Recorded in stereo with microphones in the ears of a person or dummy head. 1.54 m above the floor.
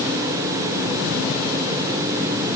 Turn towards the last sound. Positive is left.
No sound to turn to.